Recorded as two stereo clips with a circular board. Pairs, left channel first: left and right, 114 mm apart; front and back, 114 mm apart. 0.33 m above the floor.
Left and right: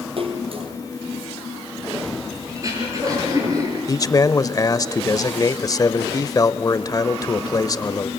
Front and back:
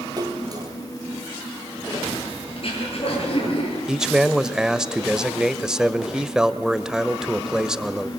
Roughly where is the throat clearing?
Ahead right.